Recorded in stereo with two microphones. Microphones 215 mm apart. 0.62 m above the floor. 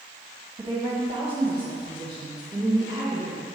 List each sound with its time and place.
0.6 s a woman speaking: 25° right (ahead or behind), 1.1 m; by 3.4 s 20° right (ahead or behind), 2.5 m